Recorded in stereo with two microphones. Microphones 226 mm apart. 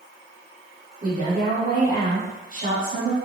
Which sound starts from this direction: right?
A woman speaking, at 1.0 s.